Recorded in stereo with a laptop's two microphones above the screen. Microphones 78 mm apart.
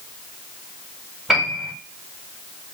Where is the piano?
5° right (ahead or behind), 1.8 m.